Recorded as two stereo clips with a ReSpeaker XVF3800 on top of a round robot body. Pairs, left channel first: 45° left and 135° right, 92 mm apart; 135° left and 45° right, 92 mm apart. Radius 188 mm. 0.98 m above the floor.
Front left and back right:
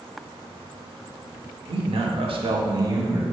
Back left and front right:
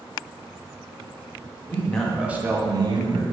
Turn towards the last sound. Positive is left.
turn(degrees=-70)